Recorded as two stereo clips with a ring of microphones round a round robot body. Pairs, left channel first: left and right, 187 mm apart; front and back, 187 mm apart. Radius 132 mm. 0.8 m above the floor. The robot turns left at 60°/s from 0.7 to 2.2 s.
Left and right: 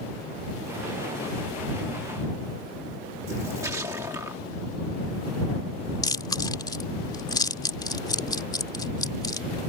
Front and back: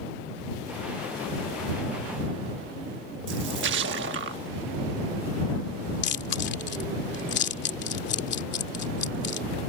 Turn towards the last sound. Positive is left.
turn(degrees=20)